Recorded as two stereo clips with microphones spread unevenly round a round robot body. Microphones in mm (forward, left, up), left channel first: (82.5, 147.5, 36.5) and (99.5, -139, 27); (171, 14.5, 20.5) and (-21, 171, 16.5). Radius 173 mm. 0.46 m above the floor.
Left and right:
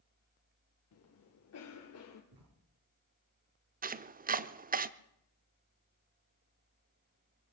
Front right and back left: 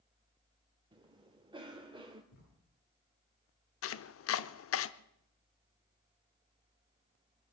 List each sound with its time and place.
0.9 s a cough: 75° left, 1.6 m
2.3 s writing: 35° right, 9.5 m
3.8 s chopping: 30° right, 0.7 m